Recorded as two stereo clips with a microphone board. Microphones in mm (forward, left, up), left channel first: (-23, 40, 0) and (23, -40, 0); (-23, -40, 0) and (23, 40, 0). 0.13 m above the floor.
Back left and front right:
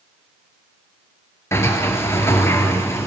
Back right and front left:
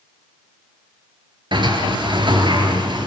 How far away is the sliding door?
About 3 m.